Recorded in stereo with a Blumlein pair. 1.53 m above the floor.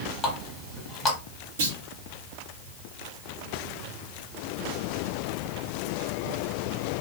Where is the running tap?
15° left, 1.5 m.